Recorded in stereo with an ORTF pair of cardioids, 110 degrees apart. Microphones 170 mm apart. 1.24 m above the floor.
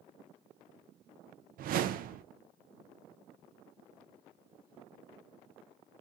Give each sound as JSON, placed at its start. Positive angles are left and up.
{"t": 1.6, "sound": "a whoosh", "azimuth_deg": -55, "distance_m": 0.6}